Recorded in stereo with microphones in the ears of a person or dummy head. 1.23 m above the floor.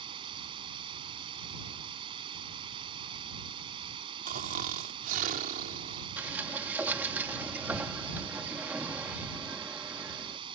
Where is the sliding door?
10° right (ahead or behind).